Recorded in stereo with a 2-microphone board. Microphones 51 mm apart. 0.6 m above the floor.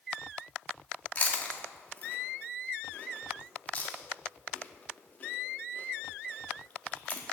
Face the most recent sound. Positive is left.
turn(degrees=30)  # may be behind; listen again after turning